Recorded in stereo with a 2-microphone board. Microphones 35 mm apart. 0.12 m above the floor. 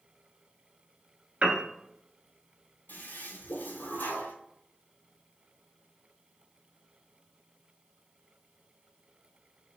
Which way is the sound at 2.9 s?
75° left (ahead or behind).